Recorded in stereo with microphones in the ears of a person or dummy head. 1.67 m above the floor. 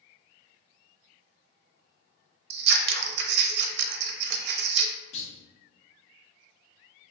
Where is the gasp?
I don't hear a gasp.